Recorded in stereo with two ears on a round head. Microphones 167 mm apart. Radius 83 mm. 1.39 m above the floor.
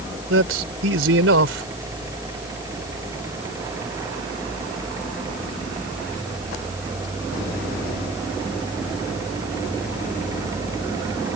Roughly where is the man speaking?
Right.